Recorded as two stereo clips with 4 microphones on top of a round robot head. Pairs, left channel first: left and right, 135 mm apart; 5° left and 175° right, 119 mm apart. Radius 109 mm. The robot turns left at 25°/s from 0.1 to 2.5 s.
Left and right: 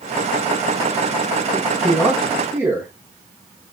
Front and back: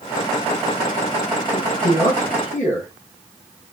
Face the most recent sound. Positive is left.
turn(degrees=-20)